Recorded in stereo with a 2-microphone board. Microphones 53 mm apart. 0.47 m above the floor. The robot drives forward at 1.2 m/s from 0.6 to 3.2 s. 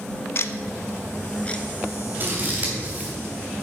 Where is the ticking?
50° left (ahead or behind), 0.5 m; by 2.8 s 10° left (ahead or behind), 2.5 m.